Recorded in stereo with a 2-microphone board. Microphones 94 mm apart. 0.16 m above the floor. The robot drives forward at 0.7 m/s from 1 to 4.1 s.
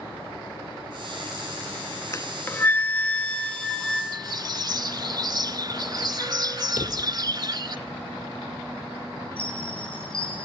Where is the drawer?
55° left (ahead or behind), 2.5 m.